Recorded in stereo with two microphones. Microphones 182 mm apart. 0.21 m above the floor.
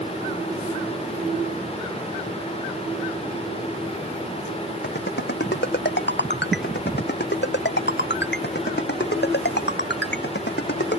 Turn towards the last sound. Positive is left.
turn(degrees=65)  # may be behind; listen again after turning